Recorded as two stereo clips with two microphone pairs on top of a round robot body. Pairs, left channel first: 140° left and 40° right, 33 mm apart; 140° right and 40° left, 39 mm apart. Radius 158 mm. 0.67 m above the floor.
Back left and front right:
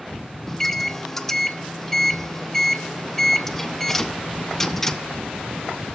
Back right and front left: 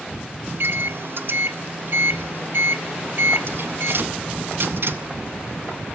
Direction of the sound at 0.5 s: 70° left.